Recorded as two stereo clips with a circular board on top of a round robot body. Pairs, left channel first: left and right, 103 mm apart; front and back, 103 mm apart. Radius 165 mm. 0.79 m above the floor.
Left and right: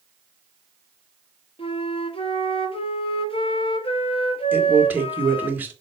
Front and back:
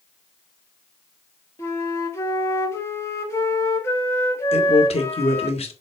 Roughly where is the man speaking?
Ahead.